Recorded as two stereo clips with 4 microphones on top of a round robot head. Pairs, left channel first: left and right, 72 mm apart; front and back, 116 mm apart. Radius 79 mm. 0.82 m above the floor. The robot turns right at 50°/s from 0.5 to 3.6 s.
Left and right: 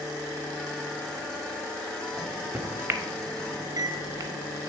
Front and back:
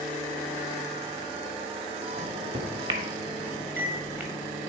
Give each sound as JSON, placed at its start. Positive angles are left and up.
{"t": 2.2, "sound": "a microwave", "azimuth_deg": 180, "distance_m": 0.9}